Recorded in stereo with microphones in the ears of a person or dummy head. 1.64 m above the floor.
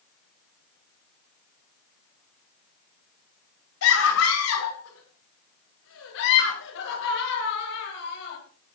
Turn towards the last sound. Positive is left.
turn(degrees=60)  # may be behind; listen again after turning